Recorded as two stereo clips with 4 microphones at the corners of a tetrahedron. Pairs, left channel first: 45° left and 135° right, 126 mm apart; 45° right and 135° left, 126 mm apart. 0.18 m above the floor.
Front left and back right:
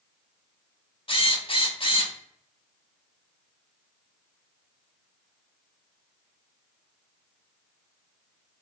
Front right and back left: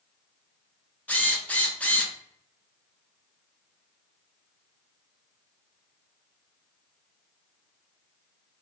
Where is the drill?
30° left, 0.6 m.